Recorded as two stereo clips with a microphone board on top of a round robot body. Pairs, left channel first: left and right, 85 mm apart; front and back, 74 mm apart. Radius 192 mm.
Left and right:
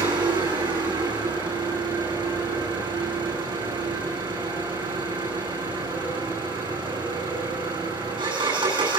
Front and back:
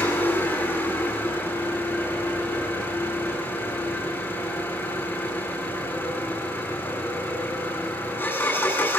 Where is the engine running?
60° right, 9 m.